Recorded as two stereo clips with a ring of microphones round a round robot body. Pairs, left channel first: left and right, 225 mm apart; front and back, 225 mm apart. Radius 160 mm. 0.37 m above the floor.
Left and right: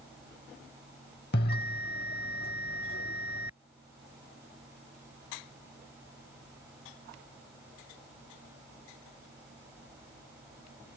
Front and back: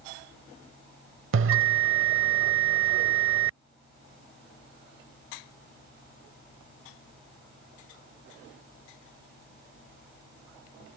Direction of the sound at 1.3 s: 145° left.